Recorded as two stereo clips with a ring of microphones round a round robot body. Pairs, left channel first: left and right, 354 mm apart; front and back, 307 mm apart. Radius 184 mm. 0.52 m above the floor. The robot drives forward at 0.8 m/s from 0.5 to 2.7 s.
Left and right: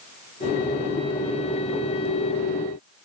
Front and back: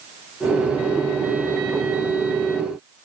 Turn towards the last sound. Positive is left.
No sound to turn to.